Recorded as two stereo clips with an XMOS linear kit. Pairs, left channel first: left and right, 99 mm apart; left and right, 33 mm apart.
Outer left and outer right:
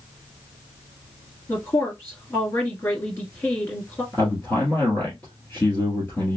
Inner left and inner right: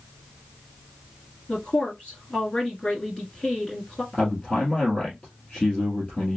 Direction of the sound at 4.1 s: 20° left (ahead or behind).